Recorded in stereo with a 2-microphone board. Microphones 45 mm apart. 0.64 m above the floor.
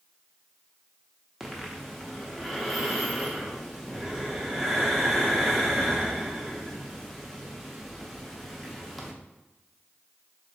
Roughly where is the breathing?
Centre.